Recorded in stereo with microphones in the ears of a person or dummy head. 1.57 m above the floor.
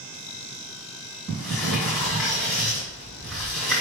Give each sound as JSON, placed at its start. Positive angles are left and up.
{"t": 1.3, "sound": "a sliding door", "side_deg": 0, "distance_m": 1.7}